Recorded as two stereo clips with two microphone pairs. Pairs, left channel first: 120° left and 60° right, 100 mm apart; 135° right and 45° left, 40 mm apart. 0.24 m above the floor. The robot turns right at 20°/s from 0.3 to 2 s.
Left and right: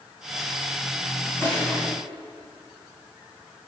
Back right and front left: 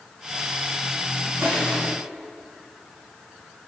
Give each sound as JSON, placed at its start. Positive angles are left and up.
{"t": 1.4, "sound": "crushing", "azimuth_deg": 50, "distance_m": 7.5}